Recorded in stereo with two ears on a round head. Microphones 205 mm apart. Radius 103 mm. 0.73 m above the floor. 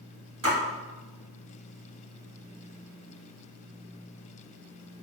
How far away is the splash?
About 1.3 m.